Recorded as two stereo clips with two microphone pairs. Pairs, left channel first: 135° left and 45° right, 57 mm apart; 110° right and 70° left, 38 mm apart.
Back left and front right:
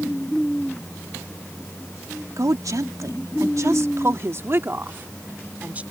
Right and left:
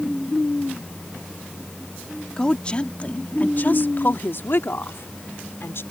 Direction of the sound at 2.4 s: 40° right.